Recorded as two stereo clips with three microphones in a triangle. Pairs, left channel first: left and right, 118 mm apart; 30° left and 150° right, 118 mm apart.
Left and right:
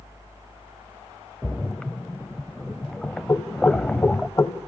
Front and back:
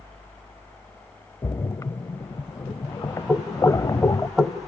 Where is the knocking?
120° left, 1.0 m.